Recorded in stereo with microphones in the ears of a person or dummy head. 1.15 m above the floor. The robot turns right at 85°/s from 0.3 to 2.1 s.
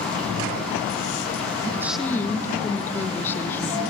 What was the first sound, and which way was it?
A woman speaking, 20° right.